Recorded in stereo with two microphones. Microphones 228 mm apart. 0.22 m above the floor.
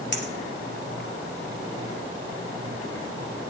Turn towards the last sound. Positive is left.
turn(degrees=50)  # may be behind; listen again after turning